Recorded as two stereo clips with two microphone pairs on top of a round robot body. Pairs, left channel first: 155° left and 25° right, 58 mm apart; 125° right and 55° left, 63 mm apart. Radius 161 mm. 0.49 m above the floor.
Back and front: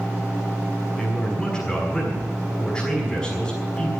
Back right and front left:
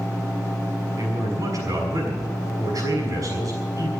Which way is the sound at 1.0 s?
75° left.